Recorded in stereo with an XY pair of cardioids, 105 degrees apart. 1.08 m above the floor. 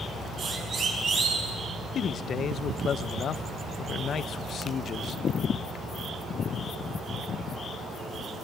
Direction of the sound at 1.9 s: 55° left.